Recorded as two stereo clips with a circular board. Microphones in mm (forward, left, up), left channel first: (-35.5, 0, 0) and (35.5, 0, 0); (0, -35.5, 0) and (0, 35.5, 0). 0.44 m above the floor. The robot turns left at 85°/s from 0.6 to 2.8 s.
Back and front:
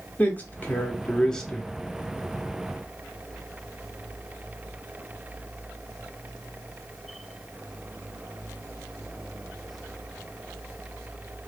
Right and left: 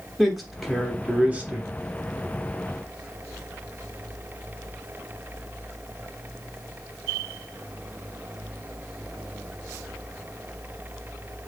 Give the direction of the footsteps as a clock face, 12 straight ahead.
I don't hear footsteps.